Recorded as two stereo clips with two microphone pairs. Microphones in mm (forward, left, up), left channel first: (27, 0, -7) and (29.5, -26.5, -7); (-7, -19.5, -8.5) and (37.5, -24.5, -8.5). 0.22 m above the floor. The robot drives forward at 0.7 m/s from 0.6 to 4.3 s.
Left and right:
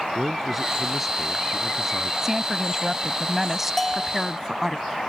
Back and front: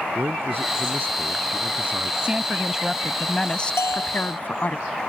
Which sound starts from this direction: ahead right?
A woman speaking, at 2.2 s.